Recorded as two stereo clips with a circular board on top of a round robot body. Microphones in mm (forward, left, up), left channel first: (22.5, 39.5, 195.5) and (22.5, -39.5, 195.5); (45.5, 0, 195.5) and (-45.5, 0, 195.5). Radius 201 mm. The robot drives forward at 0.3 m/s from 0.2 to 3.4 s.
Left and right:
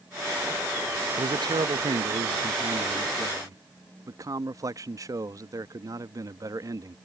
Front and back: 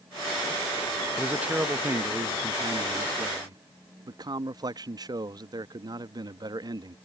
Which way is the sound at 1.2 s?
100° right.